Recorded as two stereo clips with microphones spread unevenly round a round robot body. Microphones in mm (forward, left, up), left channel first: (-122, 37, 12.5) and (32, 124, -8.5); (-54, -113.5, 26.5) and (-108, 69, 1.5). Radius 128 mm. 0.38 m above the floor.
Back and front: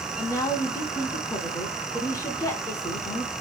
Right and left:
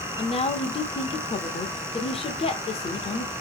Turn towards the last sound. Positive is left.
turn(degrees=-95)